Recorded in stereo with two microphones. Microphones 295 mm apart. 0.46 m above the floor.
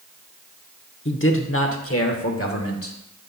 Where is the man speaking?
40° left (ahead or behind), 1.0 m; by 3.0 s 50° left (ahead or behind), 1.6 m.